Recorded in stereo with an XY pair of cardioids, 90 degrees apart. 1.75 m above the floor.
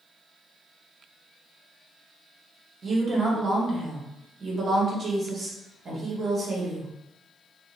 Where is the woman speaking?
50° right, 1.3 m.